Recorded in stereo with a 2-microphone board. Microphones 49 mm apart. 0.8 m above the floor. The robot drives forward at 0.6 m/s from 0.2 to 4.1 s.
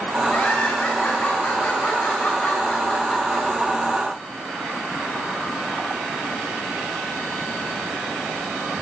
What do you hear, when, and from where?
0.3 s laughter: 40° left (ahead or behind), 8 m; by 3.5 s 35° left (ahead or behind), 9.5 m